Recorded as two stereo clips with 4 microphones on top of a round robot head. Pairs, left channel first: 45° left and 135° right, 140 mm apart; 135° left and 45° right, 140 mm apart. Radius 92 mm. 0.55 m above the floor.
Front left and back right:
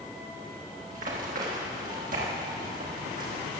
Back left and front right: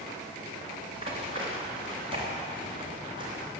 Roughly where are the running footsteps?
Right.